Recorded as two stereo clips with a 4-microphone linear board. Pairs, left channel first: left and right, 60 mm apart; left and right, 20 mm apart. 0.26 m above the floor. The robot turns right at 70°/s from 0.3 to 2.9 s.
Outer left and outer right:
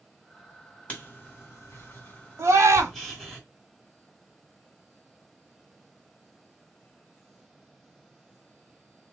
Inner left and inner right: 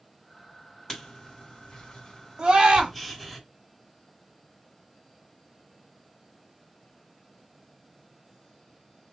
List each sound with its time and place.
0.9 s writing: 20° left (ahead or behind), 2.0 m; by 3.4 s 5° left (ahead or behind), 2.0 m
2.4 s a scream: 115° right, 1.5 m; by 2.9 s 80° right, 1.5 m